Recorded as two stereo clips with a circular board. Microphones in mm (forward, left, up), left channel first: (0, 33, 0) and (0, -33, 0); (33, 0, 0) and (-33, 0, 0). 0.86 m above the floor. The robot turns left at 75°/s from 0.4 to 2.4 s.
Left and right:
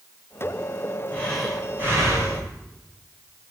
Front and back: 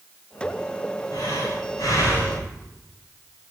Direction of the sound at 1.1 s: 25° left.